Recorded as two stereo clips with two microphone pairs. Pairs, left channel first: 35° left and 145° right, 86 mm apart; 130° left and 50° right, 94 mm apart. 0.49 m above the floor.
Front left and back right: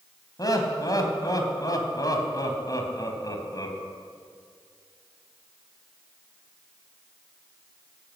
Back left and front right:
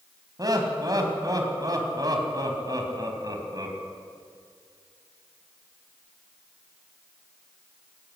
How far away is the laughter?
About 4 m.